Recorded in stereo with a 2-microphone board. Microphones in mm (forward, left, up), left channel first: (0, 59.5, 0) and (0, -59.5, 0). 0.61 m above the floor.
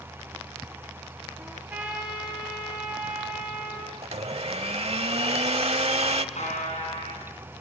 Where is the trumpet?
10° right (ahead or behind), 8 m.